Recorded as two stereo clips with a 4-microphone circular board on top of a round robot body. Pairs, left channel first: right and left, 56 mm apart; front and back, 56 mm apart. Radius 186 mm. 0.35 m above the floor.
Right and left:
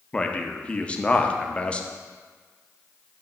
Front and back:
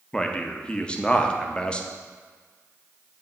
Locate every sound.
0.1 s a man speaking: 50° right, 0.9 m